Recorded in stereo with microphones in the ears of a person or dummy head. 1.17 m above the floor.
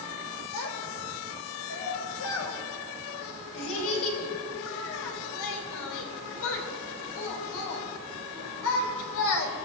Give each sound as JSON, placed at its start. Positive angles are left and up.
{"t": 0.5, "sound": "a child speaking", "side_deg": 75, "distance_m": 3.5}